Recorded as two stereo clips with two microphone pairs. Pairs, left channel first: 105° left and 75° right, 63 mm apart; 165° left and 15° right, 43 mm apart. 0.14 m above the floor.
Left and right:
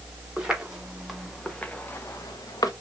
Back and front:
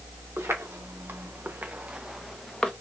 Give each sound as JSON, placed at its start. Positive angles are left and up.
{"t": 0.4, "sound": "footsteps", "azimuth_deg": 0, "distance_m": 1.4}